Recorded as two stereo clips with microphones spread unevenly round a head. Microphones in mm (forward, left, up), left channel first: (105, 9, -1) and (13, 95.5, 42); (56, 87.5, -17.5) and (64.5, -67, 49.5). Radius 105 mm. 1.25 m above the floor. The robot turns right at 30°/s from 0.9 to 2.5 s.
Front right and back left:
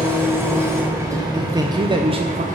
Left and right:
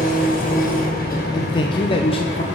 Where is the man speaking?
60° left, 0.9 m; by 2.4 s 90° left, 0.9 m.